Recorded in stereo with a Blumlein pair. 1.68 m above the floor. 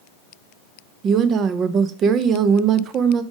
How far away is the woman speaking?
About 0.6 m.